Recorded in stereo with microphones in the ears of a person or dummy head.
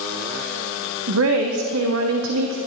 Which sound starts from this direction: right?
A woman speaking, at 1.1 s.